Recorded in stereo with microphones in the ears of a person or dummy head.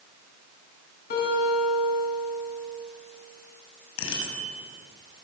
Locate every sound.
1.1 s a guitar: 50° left (ahead or behind), 8 m
4.0 s a bicycle bell: 75° left (ahead or behind), 6.5 m